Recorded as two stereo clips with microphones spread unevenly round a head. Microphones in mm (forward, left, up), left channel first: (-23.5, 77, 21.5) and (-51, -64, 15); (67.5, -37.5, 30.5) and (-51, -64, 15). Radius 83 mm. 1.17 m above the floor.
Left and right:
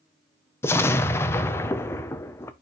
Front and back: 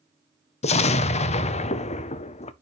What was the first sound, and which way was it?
An explosion, 5° left.